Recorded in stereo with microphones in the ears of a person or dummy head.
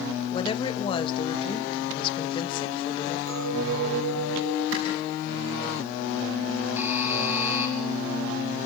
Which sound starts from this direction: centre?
A buzzer, at 6.8 s.